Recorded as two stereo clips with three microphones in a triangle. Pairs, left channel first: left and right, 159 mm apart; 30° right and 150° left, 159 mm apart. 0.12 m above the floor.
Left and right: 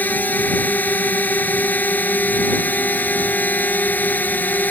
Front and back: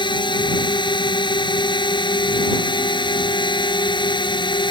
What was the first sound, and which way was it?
A drone, 15° left.